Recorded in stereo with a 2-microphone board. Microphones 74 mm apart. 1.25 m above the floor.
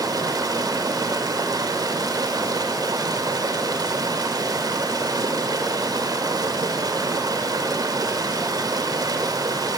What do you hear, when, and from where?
0.0 s running water: 60° right (ahead or behind), 2.5 m